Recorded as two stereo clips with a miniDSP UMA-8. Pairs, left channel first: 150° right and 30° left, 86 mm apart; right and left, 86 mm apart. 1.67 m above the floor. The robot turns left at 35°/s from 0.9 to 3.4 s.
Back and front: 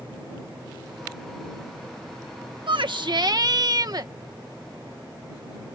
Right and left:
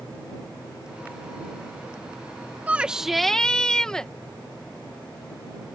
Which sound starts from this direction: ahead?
A shout, at 2.7 s.